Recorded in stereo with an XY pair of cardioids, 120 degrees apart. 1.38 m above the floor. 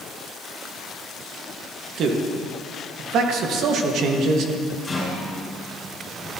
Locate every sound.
2.0 s a man speaking: 65° right, 1.7 m
4.8 s a rattle: 20° left, 5.5 m